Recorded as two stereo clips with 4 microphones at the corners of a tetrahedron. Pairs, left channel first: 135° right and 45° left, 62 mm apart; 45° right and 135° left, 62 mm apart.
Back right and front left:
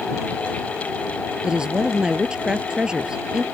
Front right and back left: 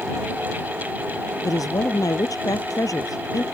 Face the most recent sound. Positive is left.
turn(degrees=-30)